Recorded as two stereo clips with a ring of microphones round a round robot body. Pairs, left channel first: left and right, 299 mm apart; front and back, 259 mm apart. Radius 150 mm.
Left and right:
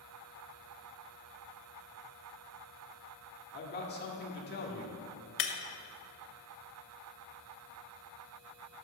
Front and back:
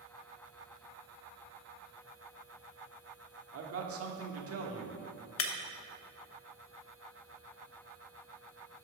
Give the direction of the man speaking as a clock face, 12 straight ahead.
7 o'clock.